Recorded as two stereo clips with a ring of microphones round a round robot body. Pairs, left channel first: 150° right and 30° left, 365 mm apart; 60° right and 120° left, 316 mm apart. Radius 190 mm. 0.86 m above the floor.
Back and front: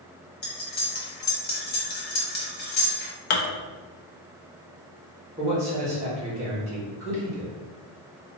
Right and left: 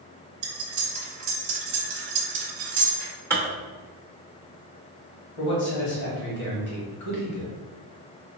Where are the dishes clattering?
145° right, 0.7 m.